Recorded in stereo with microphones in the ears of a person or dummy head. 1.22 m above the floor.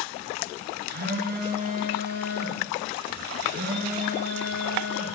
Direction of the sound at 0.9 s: 55° right (ahead or behind).